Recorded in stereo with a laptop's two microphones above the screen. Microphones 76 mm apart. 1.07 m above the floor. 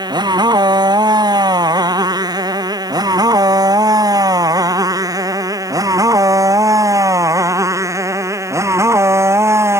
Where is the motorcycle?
70° right (ahead or behind); by 9.8 s 35° right (ahead or behind).